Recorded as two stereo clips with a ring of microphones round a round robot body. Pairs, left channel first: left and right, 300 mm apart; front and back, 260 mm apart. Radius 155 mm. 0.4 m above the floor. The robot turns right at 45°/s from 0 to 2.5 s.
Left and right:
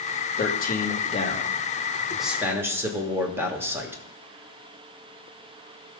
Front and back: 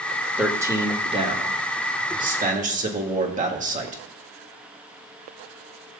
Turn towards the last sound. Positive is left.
turn(degrees=-165)